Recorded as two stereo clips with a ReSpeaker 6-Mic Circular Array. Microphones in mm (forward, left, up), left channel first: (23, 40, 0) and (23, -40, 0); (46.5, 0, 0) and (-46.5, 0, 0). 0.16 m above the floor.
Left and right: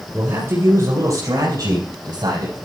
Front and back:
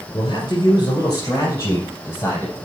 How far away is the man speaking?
About 2.5 m.